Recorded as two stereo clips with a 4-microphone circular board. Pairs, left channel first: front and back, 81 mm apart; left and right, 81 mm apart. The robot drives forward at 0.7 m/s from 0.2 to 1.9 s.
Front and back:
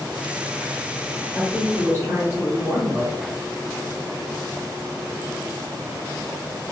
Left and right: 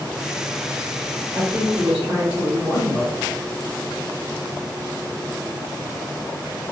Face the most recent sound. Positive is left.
turn(degrees=-150)